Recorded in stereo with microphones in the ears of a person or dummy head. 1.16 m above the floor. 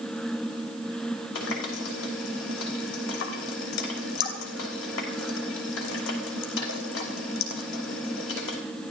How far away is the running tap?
About 3 m.